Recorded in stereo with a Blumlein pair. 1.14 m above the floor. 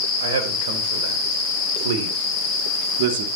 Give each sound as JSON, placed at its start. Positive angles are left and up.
{"t": 0.2, "sound": "a man speaking", "azimuth_deg": -55, "distance_m": 5.0}